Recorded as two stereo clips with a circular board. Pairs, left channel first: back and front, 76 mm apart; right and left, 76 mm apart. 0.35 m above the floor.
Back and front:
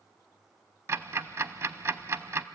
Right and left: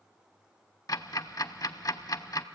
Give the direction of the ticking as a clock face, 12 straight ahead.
2 o'clock.